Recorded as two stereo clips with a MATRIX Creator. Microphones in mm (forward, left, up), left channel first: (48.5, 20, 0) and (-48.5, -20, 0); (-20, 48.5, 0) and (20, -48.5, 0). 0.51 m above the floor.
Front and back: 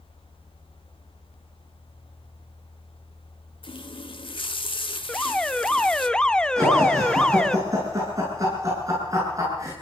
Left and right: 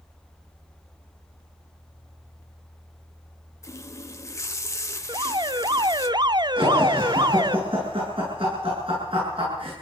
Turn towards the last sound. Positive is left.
turn(degrees=-100)